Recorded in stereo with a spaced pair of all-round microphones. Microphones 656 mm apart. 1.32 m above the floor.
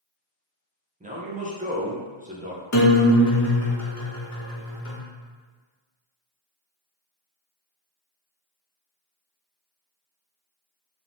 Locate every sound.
1.0 s a man speaking: 15° right (ahead or behind), 0.5 m
2.7 s a guitar: 30° left (ahead or behind), 0.5 m